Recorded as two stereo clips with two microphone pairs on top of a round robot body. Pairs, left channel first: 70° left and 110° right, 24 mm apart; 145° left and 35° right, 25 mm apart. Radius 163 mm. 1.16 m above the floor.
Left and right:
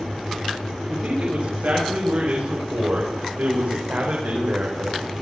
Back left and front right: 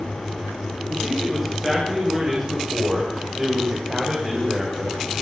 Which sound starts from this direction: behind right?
A man speaking, at 0.9 s.